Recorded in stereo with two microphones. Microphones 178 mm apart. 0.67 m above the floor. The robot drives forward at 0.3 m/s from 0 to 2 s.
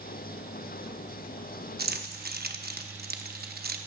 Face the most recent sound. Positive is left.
turn(degrees=-60)  # may be behind; listen again after turning